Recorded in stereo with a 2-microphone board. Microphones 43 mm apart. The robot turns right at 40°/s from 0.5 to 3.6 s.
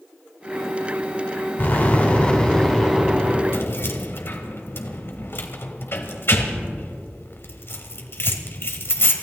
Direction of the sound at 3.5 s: 60° left (ahead or behind).